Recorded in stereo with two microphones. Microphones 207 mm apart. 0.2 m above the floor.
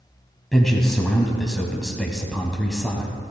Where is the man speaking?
Centre (ahead or behind), 1.0 m.